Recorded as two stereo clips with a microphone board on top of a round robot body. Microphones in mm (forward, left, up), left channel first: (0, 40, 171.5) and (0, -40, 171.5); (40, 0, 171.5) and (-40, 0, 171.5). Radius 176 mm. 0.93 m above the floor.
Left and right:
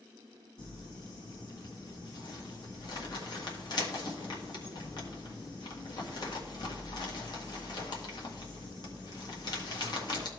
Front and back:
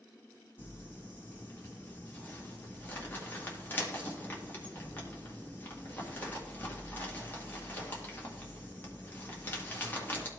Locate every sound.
0.6 s crumpling: 65° left, 1.6 m